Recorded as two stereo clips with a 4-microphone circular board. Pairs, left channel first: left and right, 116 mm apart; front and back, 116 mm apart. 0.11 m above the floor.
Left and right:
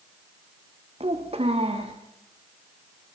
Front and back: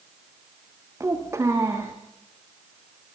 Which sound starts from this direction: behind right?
A child speaking, at 1.0 s.